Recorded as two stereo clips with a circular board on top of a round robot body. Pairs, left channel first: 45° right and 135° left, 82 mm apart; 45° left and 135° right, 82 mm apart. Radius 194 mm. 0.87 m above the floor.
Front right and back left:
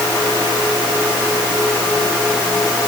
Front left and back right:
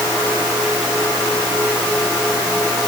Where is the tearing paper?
I don't hear tearing paper.